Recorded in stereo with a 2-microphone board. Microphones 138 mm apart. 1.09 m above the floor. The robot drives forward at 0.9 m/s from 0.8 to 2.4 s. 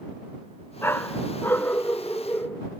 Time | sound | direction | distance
0.8 | a dog barking | 15° left (ahead or behind) | ?